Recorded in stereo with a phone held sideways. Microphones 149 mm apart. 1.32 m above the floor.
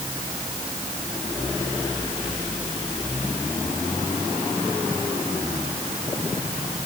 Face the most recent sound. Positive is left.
No sound to turn to.